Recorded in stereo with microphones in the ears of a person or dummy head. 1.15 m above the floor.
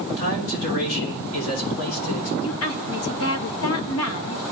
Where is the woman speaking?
65° left (ahead or behind), 1.2 m.